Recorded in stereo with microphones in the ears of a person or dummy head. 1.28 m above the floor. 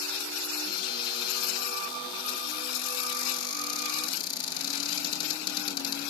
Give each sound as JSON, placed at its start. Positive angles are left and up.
{"t": 0.7, "sound": "a cupboard door", "side_deg": 30, "distance_m": 10.0}